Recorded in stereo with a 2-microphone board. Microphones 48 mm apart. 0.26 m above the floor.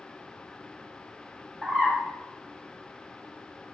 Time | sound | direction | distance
1.6 | a bird | 20° right (ahead or behind) | 1.7 m